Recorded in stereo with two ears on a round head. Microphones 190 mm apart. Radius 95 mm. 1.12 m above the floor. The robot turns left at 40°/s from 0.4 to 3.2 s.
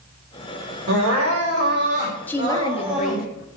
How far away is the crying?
About 4.5 m.